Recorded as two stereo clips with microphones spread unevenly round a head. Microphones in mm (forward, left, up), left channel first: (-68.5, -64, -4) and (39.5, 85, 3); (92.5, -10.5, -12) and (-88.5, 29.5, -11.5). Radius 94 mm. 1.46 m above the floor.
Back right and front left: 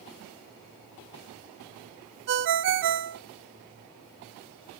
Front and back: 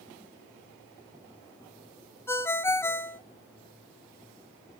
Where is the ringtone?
65° left, 0.8 m.